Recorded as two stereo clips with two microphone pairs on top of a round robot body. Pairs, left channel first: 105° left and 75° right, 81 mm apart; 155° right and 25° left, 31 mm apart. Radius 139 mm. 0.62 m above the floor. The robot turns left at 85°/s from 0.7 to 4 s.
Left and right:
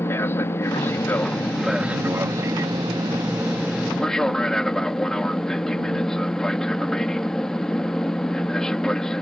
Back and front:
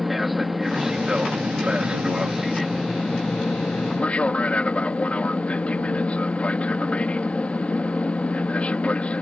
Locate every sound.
0.0 s an aircraft: 100° left; by 9.2 s straight behind